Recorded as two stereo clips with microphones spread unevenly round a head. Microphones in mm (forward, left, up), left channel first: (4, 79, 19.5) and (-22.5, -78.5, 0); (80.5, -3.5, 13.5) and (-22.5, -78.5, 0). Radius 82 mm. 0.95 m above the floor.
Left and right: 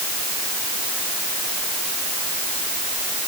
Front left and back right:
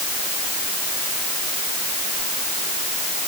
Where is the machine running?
No machine running in this recording.